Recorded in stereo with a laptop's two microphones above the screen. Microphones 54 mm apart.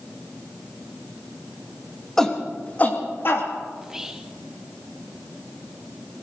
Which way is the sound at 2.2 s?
10° left (ahead or behind).